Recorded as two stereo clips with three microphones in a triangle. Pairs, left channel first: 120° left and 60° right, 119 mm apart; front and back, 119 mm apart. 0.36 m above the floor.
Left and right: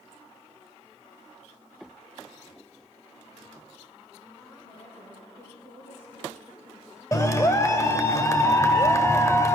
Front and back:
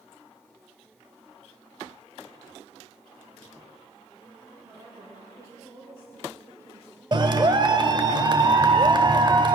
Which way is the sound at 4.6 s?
120° left.